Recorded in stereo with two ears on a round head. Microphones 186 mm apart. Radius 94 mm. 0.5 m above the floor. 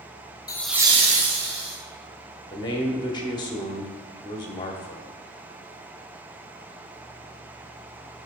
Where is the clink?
I don't hear a clink.